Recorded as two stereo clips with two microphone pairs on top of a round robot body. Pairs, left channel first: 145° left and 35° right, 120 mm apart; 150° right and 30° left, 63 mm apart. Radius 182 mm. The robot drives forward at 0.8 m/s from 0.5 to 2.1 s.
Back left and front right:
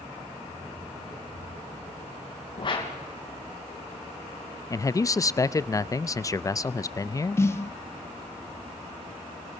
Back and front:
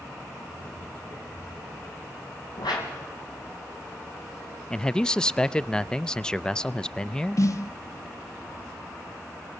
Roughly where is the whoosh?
Behind.